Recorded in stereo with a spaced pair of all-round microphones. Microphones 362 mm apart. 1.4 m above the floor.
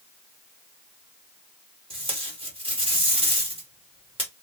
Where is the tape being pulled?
15° right (ahead or behind), 1.5 m.